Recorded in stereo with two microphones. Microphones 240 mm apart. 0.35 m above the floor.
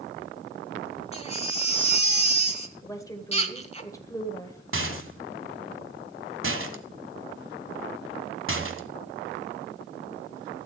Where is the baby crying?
25° left (ahead or behind), 1.2 m.